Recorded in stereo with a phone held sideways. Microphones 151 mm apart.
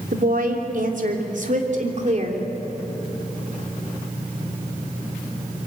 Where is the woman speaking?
70° right (ahead or behind), 3 m; by 2.4 s 45° right (ahead or behind), 3 m.